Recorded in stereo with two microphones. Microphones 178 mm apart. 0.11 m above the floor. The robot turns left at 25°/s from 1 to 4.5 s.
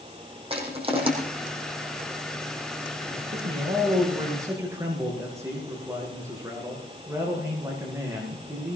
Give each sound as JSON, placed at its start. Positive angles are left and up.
{"t": 0.5, "sound": "crushing", "side_deg": -30, "distance_m": 5.0}
{"t": 3.1, "sound": "a man speaking", "azimuth_deg": -130, "distance_m": 6.0}